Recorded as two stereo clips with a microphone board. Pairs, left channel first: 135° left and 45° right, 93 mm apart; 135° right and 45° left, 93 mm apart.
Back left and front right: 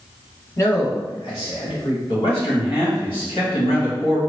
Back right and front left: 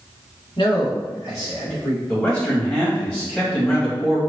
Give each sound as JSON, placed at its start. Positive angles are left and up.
{"t": 0.6, "sound": "a man speaking", "azimuth_deg": -165, "distance_m": 1.3}
{"t": 2.1, "sound": "a man speaking", "azimuth_deg": 150, "distance_m": 1.8}